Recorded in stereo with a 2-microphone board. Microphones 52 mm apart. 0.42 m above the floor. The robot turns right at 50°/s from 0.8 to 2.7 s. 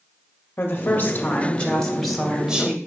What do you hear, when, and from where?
0.6 s a woman speaking: 115° left, 1.8 m; by 2.8 s 150° right, 1.8 m